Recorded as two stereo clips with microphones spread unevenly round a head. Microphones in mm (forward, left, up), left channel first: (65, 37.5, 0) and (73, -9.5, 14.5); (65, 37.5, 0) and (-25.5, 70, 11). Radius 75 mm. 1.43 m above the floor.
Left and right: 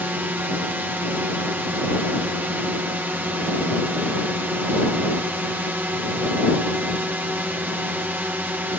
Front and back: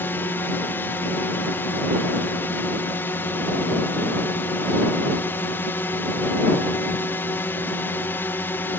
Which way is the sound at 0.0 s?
55° right.